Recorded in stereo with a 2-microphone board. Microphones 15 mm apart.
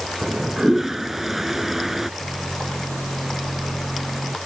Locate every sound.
0.2 s a toilet flushing: 25° right (ahead or behind)
2.2 s a microwave: 80° left